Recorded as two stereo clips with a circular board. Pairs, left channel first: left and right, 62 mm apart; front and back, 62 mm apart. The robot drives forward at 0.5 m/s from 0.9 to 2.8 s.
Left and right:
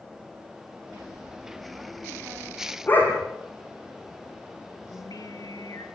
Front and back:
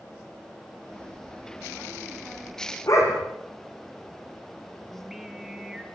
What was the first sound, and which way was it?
A dog barking, 35° left.